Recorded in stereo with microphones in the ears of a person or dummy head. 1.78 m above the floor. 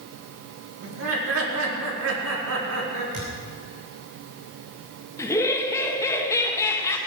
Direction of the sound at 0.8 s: 85° right.